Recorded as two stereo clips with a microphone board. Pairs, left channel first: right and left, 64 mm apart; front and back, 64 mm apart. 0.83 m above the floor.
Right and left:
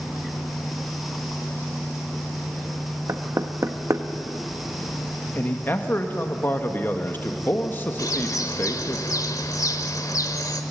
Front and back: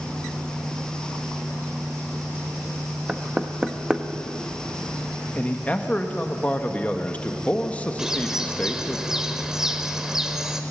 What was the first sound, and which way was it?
Knocking, 105° left.